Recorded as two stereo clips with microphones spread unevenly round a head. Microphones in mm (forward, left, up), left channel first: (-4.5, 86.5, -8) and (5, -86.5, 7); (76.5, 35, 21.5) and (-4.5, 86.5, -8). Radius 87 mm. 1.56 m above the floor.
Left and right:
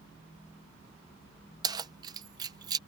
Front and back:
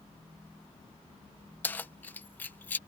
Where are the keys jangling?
45° right.